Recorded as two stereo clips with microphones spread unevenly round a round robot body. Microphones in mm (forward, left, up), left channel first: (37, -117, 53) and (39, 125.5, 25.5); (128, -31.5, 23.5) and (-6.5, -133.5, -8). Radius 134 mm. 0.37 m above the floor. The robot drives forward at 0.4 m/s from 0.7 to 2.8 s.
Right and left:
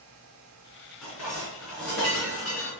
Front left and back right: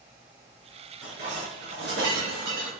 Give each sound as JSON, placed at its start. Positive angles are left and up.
{"t": 1.0, "sound": "dishes clattering", "azimuth_deg": 180, "distance_m": 3.5}